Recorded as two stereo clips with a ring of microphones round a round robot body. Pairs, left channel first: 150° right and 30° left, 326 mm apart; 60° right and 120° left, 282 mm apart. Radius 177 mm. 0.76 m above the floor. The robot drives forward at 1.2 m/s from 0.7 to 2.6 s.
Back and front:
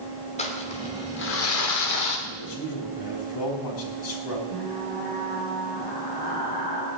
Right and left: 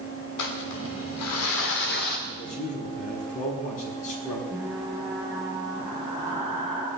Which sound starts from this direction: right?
Crumpling, at 0.4 s.